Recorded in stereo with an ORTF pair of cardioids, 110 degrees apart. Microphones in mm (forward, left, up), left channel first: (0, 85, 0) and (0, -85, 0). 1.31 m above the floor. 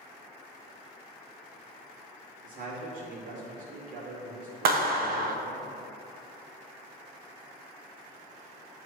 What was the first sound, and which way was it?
A man speaking, 55° right.